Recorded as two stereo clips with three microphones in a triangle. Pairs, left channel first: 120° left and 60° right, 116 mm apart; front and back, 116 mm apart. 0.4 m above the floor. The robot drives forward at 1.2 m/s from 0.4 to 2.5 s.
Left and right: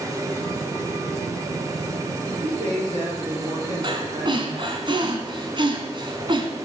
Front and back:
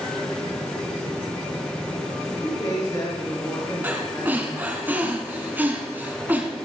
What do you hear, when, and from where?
2.3 s a man speaking: 55° right, 5 m; by 4.8 s 60° right, 5 m
3.8 s breathing: 105° right, 2 m